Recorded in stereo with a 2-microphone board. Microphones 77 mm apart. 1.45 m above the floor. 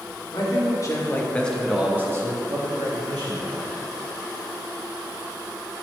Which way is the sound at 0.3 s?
55° left (ahead or behind).